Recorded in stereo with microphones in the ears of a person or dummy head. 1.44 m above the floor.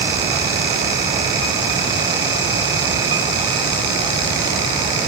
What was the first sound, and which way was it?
Only background noise.